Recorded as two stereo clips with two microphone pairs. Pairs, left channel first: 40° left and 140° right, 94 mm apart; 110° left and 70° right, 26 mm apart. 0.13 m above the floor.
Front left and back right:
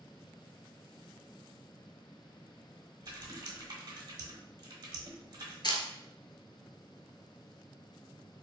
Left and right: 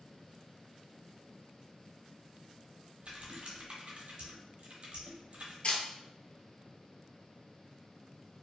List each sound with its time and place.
3.0 s typing on a keyboard: 100° right, 0.8 m
5.6 s a camera shutter: 75° left, 0.5 m